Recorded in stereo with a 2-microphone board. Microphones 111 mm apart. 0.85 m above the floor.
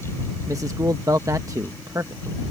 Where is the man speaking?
30° right (ahead or behind).